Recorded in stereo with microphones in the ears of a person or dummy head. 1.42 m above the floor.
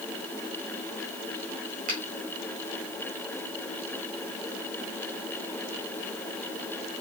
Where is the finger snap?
40° right (ahead or behind), 3 m.